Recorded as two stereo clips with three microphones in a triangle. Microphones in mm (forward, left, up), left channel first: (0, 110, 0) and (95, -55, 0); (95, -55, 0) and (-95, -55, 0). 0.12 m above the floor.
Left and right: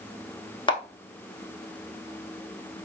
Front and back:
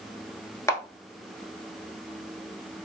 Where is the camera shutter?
65° left, 0.8 m.